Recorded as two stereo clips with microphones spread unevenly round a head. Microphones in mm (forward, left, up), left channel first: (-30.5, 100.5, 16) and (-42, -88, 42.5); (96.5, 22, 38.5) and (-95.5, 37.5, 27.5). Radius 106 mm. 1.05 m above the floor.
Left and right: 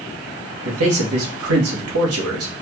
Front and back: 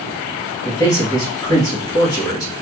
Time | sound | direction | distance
0.7 | a man speaking | 80° right | 1.3 m